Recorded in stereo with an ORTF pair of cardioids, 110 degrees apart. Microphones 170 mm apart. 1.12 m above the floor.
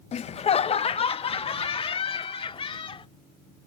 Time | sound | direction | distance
0.1 | laughter | 40° left | ?